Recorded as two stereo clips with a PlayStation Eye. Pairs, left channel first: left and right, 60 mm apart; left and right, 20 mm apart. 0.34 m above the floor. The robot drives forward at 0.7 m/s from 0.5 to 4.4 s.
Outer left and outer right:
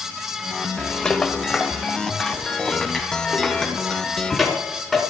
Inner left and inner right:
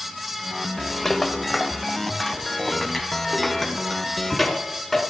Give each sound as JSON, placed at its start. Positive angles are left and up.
{"t": 1.1, "sound": "a rattle", "side_deg": 15, "distance_m": 1.1}